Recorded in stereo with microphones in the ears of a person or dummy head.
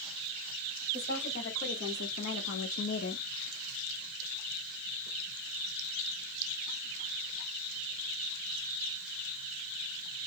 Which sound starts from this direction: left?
A woman speaking, at 0.9 s.